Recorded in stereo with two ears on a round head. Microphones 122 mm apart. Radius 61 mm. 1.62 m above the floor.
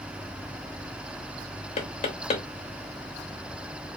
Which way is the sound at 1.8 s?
50° left (ahead or behind).